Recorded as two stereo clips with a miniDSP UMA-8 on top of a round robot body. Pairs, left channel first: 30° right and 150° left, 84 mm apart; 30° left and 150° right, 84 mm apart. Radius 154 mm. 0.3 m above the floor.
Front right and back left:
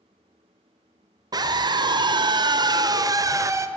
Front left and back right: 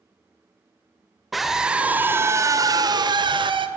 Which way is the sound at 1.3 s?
120° left.